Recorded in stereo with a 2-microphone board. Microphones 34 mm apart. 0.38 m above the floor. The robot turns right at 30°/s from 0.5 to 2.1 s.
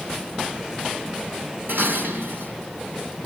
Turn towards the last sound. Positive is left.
turn(degrees=-75)  # may be behind; listen again after turning